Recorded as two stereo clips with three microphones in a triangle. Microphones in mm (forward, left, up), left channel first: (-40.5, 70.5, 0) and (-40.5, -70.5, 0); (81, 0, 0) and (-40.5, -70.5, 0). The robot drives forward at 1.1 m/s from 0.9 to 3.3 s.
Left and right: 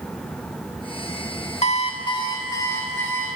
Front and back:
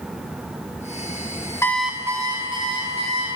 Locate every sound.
1.6 s an alarm clock: 90° left, 0.6 m; by 3.3 s 165° left, 1.9 m